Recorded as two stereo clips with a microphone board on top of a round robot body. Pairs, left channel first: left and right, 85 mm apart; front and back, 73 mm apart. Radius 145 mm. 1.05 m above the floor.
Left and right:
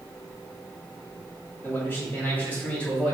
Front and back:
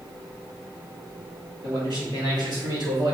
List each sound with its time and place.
1.6 s a man speaking: 155° left, 3 m; by 3.1 s 170° left, 3 m